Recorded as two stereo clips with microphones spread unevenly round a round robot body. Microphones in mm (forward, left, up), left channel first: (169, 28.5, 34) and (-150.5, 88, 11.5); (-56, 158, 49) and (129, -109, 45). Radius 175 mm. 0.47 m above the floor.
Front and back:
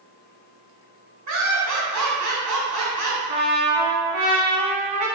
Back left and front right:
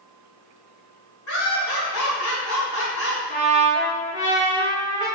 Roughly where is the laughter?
Behind.